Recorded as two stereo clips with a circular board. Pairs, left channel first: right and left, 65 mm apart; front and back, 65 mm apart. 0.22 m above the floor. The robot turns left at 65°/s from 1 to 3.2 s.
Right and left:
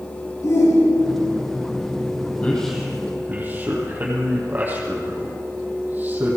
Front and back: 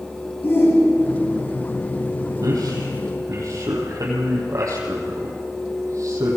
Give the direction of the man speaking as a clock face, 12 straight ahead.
5 o'clock.